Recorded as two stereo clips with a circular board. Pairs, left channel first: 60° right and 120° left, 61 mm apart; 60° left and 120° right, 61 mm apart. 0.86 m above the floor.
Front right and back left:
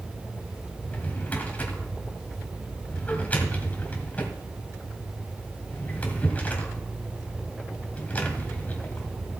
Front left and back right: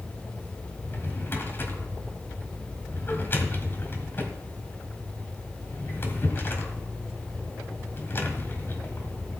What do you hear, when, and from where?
0.8 s a drawer: 5° left, 1.8 m